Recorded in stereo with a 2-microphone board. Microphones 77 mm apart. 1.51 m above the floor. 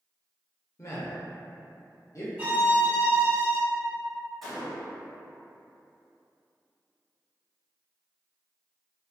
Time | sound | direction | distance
0.8 | a man speaking | 45° left (ahead or behind) | 0.6 m
2.4 | a violin | 20° right (ahead or behind) | 1.8 m
4.4 | a gunshot | centre (ahead or behind) | 1.1 m